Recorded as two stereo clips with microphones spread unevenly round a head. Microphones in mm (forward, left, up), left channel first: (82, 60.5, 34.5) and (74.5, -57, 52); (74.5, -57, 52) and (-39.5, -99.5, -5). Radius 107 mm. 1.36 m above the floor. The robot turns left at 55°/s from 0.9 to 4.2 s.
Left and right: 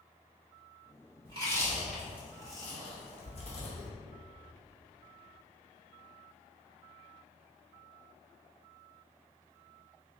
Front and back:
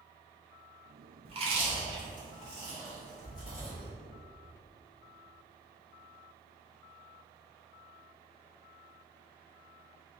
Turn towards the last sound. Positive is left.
turn(degrees=50)